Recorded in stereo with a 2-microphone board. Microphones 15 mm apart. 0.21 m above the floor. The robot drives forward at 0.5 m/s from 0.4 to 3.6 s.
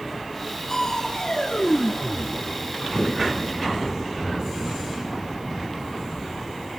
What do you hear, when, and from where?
0.7 s crushing: 40° left (ahead or behind), 2.5 m; by 3.4 s 60° left (ahead or behind), 2.0 m